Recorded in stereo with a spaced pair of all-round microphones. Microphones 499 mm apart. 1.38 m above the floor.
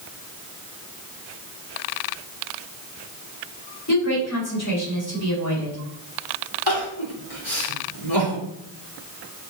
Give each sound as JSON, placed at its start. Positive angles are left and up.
{"t": 3.9, "sound": "a woman speaking", "side_deg": 35, "distance_m": 4.5}
{"t": 6.7, "sound": "crying", "side_deg": 60, "distance_m": 3.0}